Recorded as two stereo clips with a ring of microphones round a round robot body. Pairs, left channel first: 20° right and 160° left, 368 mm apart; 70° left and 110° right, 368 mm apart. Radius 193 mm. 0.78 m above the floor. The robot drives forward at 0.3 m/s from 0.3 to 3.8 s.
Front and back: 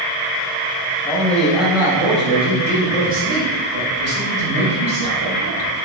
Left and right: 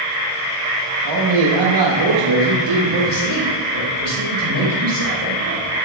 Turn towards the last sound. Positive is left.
turn(degrees=-140)